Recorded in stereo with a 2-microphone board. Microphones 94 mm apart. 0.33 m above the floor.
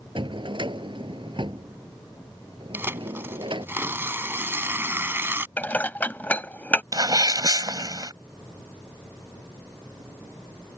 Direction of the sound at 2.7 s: 25° right (ahead or behind).